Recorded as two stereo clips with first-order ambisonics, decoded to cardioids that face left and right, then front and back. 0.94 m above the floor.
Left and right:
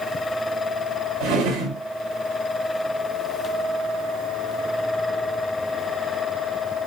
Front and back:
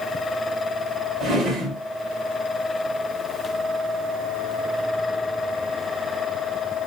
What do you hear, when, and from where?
1.2 s a drawer: 100° right, 3 m